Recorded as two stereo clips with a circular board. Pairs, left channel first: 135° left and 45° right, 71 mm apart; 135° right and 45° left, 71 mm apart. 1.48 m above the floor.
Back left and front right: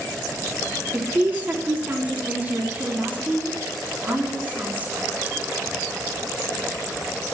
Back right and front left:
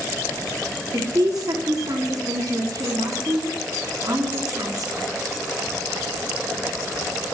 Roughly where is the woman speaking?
Ahead.